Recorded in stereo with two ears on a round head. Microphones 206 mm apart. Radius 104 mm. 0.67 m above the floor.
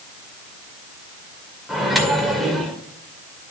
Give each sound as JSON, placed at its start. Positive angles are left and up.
{"t": 1.7, "sound": "a microwave", "side_deg": 0, "distance_m": 2.0}